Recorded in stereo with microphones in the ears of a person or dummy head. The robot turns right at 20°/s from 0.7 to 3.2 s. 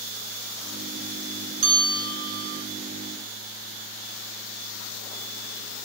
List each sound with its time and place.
1.6 s a bell: 90° right, 8 m; by 2.6 s 70° right (ahead or behind), 8 m